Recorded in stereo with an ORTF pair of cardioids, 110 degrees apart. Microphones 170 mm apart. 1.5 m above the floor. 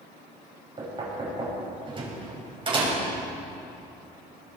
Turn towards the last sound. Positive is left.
turn(degrees=-30)